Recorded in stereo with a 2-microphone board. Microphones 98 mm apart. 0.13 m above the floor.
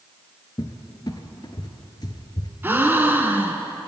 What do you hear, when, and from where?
0.6 s a cupboard door: 50° left (ahead or behind), 0.6 m
2.6 s a gasp: 25° right (ahead or behind), 0.5 m